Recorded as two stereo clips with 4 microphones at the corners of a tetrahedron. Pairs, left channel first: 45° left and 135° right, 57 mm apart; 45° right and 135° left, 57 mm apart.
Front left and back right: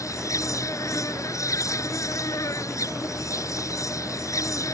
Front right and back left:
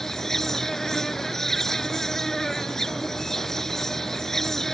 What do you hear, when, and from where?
0.0 s an insect: 35° left